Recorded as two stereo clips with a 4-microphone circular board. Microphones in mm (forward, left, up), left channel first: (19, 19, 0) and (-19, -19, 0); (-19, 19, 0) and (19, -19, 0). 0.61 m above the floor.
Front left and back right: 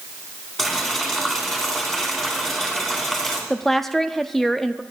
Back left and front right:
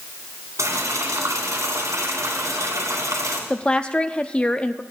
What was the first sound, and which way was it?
Boiling, 40° right.